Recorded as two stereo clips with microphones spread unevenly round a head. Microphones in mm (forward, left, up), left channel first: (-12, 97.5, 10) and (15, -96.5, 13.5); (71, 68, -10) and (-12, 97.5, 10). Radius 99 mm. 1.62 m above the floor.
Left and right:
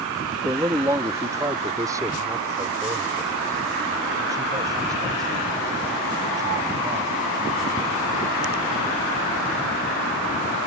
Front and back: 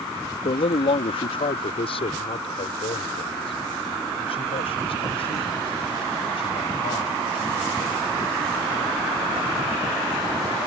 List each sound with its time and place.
0.5 s a man speaking: 5° right; by 8.1 s 10° right